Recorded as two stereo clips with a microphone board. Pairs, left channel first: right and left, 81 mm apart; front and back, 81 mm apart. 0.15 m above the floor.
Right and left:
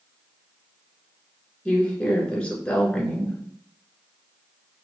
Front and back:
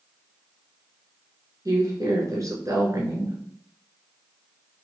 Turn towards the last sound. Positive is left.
turn(degrees=-160)